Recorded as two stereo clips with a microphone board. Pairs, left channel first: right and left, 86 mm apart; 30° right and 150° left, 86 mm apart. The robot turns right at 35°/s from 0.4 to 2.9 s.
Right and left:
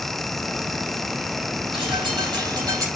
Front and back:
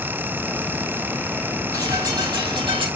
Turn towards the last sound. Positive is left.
turn(degrees=140)